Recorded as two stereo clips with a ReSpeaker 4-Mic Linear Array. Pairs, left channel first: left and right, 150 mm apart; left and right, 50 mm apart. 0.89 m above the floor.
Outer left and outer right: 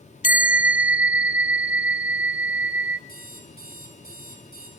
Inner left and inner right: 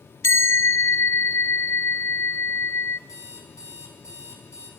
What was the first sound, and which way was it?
A bell, 65° left (ahead or behind).